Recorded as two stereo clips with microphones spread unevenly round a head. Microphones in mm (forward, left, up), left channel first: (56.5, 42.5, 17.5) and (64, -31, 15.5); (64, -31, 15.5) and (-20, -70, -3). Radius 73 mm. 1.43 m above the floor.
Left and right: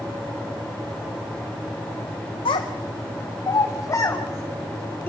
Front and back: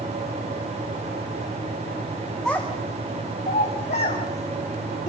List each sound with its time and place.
2.5 s a child speaking: 110° left, 1.1 m; by 5.1 s 35° left, 3.5 m